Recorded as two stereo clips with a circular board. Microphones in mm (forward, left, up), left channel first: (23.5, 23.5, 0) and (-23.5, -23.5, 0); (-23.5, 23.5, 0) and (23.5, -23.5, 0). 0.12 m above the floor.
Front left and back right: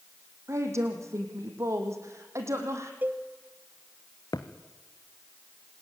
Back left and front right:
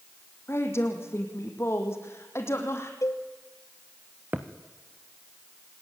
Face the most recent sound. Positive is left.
turn(degrees=15)